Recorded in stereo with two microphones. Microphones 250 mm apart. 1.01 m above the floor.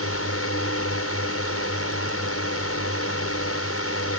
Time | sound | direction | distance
0.0 | a drone | 75° left (ahead or behind) | ?